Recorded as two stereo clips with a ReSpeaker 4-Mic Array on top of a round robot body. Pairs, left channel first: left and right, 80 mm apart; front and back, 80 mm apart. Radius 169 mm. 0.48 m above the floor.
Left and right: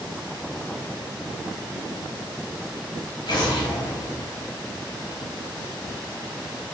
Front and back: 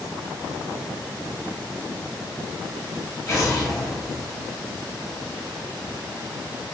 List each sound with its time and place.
3.3 s an explosion: 55° left, 2.0 m